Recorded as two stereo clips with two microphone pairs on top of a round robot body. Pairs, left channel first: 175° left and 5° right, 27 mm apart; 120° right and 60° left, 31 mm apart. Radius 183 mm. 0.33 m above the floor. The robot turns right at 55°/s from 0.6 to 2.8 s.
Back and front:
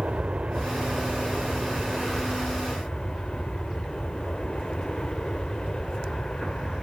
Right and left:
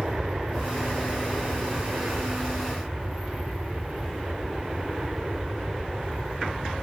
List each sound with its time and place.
0.0 s an aircraft: 5° left; by 6.8 s 125° left